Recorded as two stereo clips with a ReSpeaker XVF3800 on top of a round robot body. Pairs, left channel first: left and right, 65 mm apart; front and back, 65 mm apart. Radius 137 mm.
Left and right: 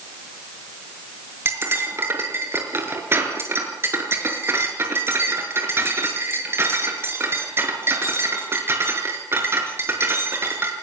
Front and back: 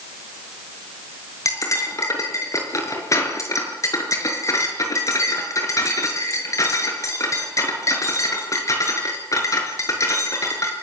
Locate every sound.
1.4 s cutlery clinking: 40° right, 5.5 m